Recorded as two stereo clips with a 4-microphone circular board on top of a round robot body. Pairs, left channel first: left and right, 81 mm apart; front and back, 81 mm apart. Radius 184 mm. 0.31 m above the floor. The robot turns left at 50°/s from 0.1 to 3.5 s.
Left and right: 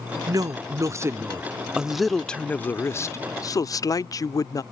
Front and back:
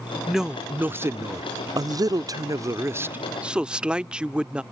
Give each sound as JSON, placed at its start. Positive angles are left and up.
{"t": 0.3, "sound": "a woman speaking", "azimuth_deg": -95}